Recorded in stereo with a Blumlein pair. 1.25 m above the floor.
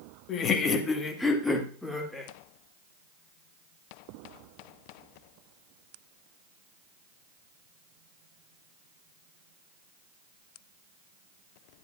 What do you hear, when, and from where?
0.3 s laughter: 30° left, 1.4 m; by 2.3 s straight ahead, 3 m